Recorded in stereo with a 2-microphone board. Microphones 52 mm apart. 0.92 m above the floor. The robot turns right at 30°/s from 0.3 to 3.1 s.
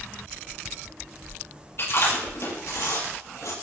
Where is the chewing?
55° left (ahead or behind), 6.5 m; by 3.5 s 85° left, 6.5 m.